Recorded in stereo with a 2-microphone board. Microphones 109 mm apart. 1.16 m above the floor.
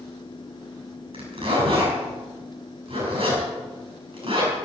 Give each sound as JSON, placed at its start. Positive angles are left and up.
{"t": 1.1, "sound": "a zipper", "side_deg": -55, "distance_m": 7.5}